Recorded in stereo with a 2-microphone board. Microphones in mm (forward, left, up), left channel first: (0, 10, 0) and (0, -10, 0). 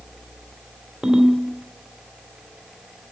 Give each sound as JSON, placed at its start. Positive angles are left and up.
{"t": 1.0, "sound": "a ringtone", "side_deg": -45, "distance_m": 2.5}